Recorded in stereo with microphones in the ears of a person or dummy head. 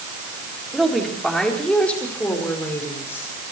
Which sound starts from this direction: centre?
A woman speaking, at 0.7 s.